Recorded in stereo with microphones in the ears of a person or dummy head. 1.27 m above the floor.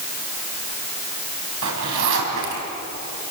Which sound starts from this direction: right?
A zipper, at 1.6 s.